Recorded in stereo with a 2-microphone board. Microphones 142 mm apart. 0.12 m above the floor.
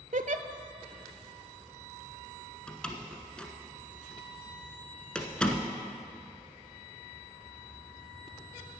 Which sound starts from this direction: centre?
A door slam, at 2.7 s.